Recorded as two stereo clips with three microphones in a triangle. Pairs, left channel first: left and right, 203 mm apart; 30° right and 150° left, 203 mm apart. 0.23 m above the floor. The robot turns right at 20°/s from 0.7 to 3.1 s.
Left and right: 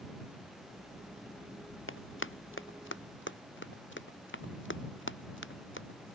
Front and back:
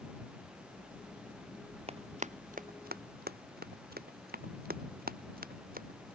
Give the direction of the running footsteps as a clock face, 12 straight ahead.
9 o'clock.